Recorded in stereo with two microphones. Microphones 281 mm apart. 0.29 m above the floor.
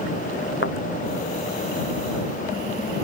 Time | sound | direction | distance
0.6 | a thud | 45° left (ahead or behind) | ?